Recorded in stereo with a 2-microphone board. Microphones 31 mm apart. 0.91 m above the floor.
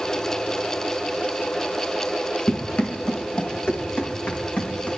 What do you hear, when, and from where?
2.5 s running footsteps: 75° left (ahead or behind), 3.5 m; by 4.9 s 70° left (ahead or behind), 5 m